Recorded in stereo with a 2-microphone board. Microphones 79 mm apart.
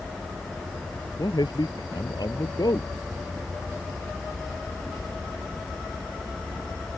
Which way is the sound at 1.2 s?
60° left (ahead or behind).